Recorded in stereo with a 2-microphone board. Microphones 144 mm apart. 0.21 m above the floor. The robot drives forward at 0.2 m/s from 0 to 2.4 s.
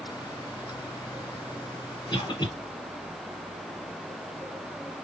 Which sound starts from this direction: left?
A cough, at 2.1 s.